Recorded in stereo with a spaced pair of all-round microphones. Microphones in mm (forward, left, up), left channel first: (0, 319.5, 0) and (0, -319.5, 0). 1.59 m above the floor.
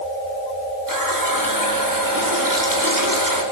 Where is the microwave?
I don't hear a microwave.